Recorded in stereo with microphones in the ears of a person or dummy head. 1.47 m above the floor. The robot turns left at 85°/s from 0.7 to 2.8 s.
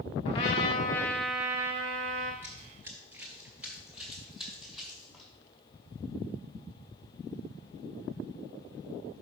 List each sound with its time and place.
0.2 s a trumpet: 45° left, 1.3 m; by 2.3 s 90° right, 1.3 m
2.4 s running footsteps: 15° right (ahead or behind), 1.5 m; by 5.3 s 5° right (ahead or behind), 4.5 m